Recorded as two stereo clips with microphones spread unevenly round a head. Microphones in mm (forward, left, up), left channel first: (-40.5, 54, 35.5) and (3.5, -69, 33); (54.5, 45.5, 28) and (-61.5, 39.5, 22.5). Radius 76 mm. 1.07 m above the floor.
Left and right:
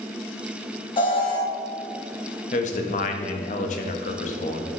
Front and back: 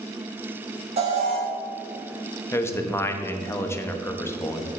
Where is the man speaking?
70° left, 1.1 m.